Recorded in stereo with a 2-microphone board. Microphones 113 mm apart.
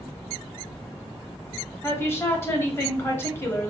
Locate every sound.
1.8 s a woman speaking: 25° left (ahead or behind), 1.0 m